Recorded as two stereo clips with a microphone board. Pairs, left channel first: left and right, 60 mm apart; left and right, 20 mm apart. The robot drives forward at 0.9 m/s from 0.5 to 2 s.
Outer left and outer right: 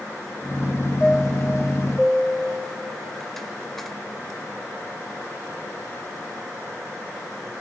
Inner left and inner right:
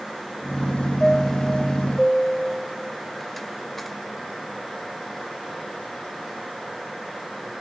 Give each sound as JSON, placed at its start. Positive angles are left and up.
{"t": 1.0, "sound": "a chime", "side_deg": 5, "distance_m": 0.7}